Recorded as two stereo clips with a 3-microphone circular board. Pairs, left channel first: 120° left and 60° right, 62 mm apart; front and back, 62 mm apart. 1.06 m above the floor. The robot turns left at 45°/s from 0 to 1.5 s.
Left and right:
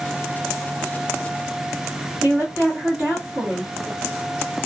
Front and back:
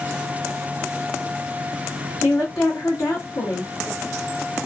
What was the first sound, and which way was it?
A woman speaking, straight ahead.